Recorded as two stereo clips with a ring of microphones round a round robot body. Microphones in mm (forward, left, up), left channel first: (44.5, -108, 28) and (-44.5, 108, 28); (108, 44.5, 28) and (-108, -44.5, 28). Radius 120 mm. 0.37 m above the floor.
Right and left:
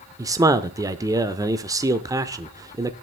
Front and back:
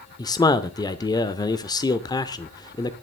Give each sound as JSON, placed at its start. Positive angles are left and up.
{"t": 0.2, "sound": "a man speaking", "azimuth_deg": 65, "distance_m": 0.8}